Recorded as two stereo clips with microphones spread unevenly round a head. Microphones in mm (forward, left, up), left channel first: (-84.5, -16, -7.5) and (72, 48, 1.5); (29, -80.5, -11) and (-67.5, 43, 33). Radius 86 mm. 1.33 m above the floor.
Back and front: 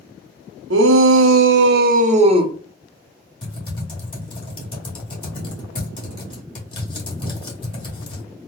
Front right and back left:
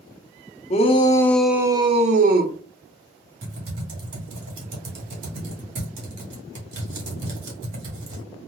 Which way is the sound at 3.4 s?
140° left.